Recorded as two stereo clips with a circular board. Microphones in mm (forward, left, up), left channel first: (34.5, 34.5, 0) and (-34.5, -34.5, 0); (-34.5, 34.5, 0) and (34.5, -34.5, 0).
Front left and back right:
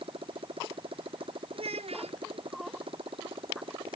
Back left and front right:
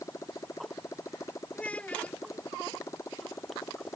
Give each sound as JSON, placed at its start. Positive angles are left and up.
{"t": 0.0, "sound": "a motorcycle", "azimuth_deg": -165}
{"t": 1.5, "sound": "a child speaking", "azimuth_deg": -145}